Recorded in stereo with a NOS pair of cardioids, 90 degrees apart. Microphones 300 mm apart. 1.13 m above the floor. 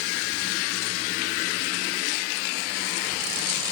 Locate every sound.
Only background noise.